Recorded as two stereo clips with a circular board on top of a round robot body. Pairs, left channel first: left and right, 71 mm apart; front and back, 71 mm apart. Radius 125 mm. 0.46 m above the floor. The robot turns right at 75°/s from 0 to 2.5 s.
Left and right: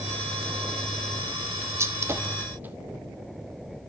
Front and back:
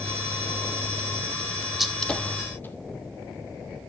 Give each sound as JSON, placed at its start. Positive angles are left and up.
{"t": 1.8, "sound": "a gunshot", "azimuth_deg": -95, "distance_m": 1.6}